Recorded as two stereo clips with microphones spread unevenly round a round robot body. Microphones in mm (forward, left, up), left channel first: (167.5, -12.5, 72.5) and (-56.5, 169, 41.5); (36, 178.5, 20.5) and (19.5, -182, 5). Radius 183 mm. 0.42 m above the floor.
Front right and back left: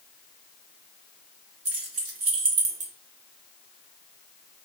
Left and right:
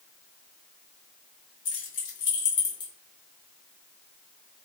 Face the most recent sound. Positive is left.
turn(degrees=180)